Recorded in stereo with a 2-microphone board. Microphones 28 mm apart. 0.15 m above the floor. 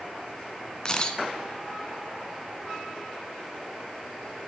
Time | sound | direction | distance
0.8 | a camera shutter | 25° left (ahead or behind) | 1.1 m